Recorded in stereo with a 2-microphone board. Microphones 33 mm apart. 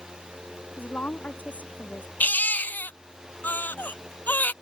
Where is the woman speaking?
55° left (ahead or behind); by 2.1 s 60° left (ahead or behind).